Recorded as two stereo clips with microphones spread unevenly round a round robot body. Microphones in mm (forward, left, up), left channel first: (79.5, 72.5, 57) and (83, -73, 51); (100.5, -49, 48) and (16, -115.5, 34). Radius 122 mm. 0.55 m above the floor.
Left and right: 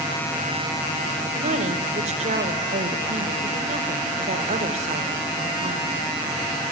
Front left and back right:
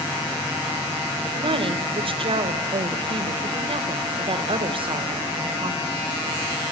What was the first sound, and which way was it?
A woman speaking, 130° right.